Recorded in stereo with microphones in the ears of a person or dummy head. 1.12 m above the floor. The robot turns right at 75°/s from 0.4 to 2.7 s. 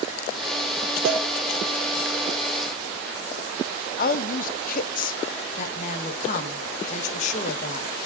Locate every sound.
1.1 s a cowbell: 90° right, 5 m; by 1.2 s 75° right (ahead or behind), 5 m
4.0 s a woman speaking: 45° left (ahead or behind), 0.6 m
5.6 s a woman speaking: 45° left (ahead or behind), 1.6 m